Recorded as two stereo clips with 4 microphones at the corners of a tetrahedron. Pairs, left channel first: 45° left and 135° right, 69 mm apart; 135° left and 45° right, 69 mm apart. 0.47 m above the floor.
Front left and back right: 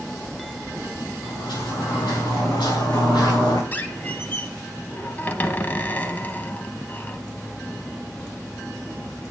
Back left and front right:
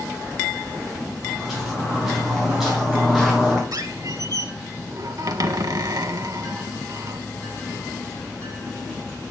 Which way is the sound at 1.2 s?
45° left.